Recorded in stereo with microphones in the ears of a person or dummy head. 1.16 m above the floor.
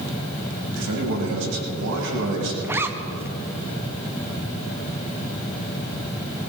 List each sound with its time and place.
0.8 s a man speaking: 65° right (ahead or behind), 6.5 m
2.6 s a zipper: 10° right (ahead or behind), 0.7 m